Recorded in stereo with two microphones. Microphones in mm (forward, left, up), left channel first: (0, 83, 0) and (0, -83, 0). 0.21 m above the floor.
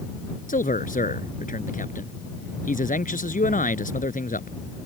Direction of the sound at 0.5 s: 55° left (ahead or behind).